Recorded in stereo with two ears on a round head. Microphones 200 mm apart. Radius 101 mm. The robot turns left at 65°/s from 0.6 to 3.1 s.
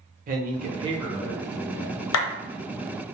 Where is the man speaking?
140° right, 0.7 m; by 2.1 s 120° left, 0.7 m.